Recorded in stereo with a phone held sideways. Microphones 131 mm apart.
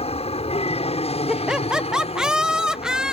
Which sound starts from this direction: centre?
Laughter, at 1.3 s.